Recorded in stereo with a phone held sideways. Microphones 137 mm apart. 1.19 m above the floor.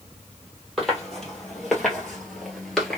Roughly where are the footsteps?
Centre.